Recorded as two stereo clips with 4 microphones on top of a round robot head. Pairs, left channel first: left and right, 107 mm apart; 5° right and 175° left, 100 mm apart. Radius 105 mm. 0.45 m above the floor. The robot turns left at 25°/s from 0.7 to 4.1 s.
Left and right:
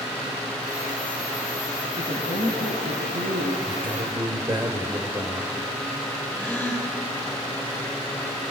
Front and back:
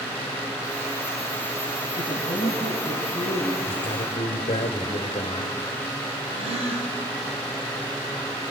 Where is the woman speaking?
50° right, 4.5 m; by 3.5 s 90° right, 4.5 m.